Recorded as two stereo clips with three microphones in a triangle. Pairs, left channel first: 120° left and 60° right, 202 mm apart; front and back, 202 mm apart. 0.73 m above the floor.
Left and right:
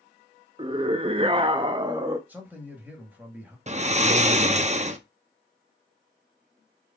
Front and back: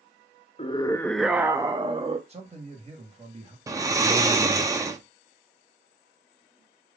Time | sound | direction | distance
0.6 | a scream | 20° right | 0.5 m
2.3 | a man speaking | 140° right | 1.5 m
3.7 | snoring | 110° right | 0.6 m